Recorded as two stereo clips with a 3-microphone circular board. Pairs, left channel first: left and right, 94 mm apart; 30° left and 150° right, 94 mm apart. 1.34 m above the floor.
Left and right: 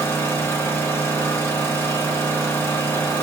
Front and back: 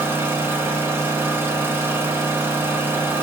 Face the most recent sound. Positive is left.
turn(degrees=150)